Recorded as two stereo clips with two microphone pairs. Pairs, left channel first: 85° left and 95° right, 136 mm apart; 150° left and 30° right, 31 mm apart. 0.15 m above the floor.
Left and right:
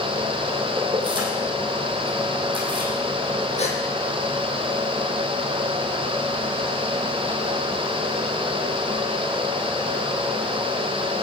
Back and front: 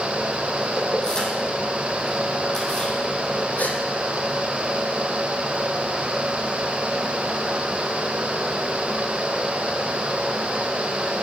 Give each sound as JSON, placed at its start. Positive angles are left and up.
{"t": 0.8, "sound": "keys jangling", "azimuth_deg": -145, "distance_m": 3.5}
{"t": 3.6, "sound": "a gasp", "azimuth_deg": 125, "distance_m": 2.0}